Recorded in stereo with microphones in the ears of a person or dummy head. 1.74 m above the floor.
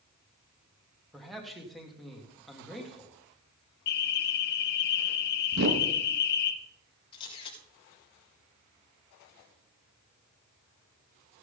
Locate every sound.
1.1 s a man speaking: centre (ahead or behind), 2 m
3.9 s an alarm: 60° left (ahead or behind), 1.4 m
5.5 s a whoosh: 55° right (ahead or behind), 1.6 m
7.1 s a camera shutter: 30° left (ahead or behind), 3.5 m